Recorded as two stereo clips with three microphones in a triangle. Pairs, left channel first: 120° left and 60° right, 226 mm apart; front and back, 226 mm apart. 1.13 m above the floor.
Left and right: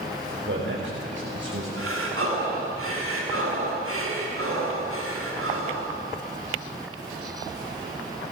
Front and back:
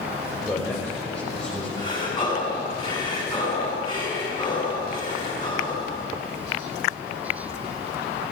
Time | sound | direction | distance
0.5 | a man speaking | 80° right | 6 m
1.8 | breathing | 70° right | 8 m